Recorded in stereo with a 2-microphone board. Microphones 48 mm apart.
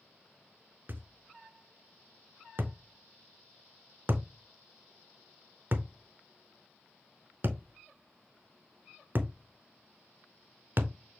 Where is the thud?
45° right (ahead or behind), 0.6 m.